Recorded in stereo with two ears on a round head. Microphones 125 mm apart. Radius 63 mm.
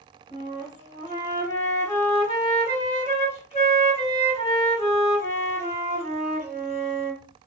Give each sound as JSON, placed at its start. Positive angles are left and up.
{"t": 0.3, "sound": "a flute", "side_deg": 55, "distance_m": 2.5}